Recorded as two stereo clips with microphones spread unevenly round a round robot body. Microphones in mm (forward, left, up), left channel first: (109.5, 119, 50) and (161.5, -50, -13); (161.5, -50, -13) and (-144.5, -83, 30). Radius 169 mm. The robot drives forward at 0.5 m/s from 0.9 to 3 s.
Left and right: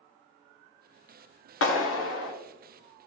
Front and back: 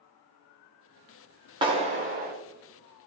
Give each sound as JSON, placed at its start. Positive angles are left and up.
{"t": 1.6, "sound": "a clap", "azimuth_deg": 110, "distance_m": 1.5}